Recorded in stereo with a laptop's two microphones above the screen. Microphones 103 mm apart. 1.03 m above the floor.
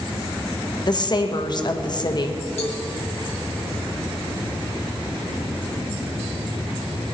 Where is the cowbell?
80° left, 3 m.